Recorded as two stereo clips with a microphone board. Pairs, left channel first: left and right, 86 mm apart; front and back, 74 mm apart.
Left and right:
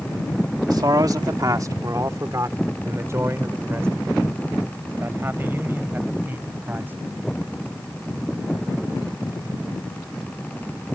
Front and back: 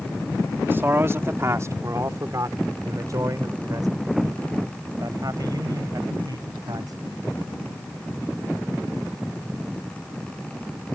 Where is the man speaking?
120° right; by 6.9 s 155° right.